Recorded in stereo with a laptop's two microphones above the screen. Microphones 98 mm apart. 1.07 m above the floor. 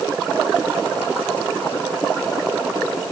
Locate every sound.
Only background noise.